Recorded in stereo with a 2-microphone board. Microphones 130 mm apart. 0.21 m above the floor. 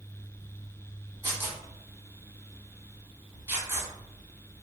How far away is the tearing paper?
About 1.0 m.